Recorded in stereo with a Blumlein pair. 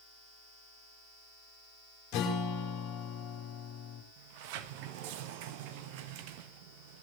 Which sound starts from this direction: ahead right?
A sliding door, at 4.2 s.